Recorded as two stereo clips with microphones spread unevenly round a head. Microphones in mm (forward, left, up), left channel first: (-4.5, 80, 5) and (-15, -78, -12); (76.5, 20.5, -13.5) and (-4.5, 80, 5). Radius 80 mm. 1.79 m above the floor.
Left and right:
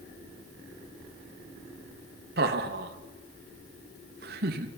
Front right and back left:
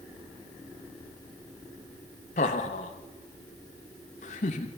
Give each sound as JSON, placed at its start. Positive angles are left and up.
{"t": 2.4, "sound": "laughter", "azimuth_deg": -60, "distance_m": 2.5}